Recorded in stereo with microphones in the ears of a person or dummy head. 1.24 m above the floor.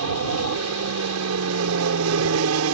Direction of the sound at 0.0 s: 70° right (ahead or behind).